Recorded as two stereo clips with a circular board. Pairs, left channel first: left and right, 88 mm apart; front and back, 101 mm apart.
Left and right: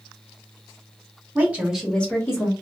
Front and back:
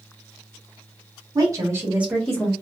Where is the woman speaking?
150° right, 1.3 m; by 2.5 s 70° left, 1.2 m.